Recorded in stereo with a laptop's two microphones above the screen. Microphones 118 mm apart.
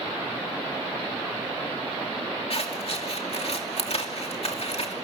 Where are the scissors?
55° left (ahead or behind), 2.5 m.